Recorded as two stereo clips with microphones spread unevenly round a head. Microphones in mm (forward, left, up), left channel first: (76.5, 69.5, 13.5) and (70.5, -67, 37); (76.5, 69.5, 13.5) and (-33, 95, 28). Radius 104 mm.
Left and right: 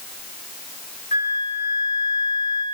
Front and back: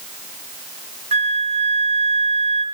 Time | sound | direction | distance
1.1 | a flute | 150° left | 2.5 m